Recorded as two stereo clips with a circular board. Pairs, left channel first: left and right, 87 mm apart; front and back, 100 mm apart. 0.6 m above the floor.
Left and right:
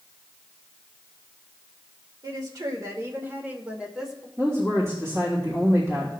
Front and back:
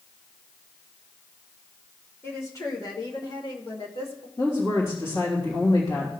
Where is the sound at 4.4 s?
35° right, 2.5 m.